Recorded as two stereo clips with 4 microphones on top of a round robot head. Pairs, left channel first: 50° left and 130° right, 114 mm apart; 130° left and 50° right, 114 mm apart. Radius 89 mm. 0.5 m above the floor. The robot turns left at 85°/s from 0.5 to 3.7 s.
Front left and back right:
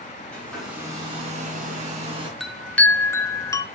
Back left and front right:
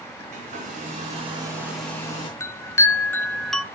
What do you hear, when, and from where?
0.3 s a hair dryer: 30° right, 3 m; by 2.3 s 175° left, 3 m
2.4 s a chime: 145° left, 0.9 m; by 3.6 s 35° left, 0.9 m